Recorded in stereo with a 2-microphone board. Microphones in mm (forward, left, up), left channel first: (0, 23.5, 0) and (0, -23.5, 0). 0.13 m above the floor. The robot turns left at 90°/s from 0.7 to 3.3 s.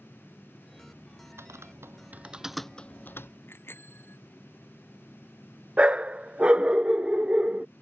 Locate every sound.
1.4 s typing on a keyboard: 70° right (ahead or behind); by 3.3 s 65° left (ahead or behind)
3.5 s a bicycle bell: 55° left (ahead or behind)
5.8 s a dog barking: 25° right (ahead or behind)